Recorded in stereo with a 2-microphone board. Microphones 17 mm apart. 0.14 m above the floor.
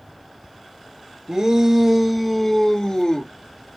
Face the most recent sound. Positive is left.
turn(degrees=45)  # may be behind; listen again after turning